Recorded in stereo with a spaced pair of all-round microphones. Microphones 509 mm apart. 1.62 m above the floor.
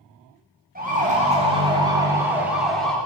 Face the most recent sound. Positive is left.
turn(degrees=0)  # may be behind; listen again after turning